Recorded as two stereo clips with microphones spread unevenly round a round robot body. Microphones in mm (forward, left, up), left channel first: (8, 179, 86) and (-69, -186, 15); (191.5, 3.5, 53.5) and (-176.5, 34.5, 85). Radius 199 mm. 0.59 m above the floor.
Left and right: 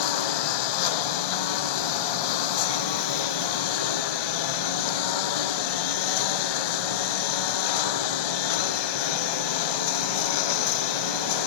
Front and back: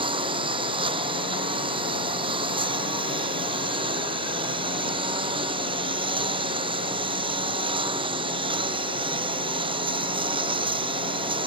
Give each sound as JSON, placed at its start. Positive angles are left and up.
{"t": 0.0, "sound": "a lawn mower", "azimuth_deg": 100}